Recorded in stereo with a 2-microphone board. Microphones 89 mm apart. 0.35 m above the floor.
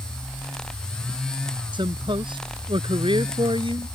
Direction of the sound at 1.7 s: 65° right (ahead or behind).